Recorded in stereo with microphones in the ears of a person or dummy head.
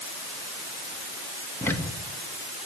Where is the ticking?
15° left (ahead or behind), 2 m.